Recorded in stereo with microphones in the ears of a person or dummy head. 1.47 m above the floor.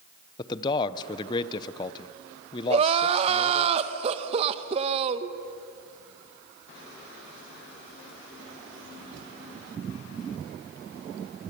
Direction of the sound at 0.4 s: 25° left (ahead or behind).